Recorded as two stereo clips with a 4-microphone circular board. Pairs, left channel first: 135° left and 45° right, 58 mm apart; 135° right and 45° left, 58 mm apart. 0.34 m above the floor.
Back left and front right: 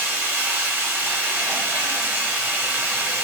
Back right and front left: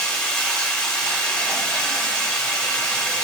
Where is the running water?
85° right, 1.3 m.